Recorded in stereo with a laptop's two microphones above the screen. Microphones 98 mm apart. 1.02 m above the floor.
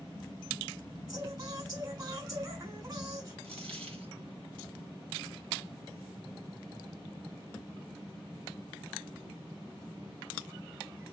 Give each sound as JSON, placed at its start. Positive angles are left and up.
{"t": 1.1, "sound": "singing", "side_deg": -45, "distance_m": 4.0}
{"t": 3.4, "sound": "a dropped coin", "side_deg": -80, "distance_m": 3.5}